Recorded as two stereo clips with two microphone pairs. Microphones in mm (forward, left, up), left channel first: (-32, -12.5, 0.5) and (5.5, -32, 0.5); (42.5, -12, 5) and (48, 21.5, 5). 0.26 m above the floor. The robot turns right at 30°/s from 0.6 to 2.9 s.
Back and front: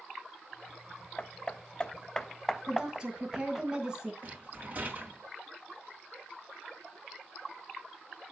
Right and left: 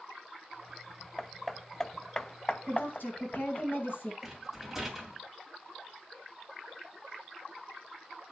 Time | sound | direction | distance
1.2 | hammering | 175° right | 0.5 m
2.7 | a woman speaking | 105° right | 3 m
4.2 | a rattle | straight ahead | 2 m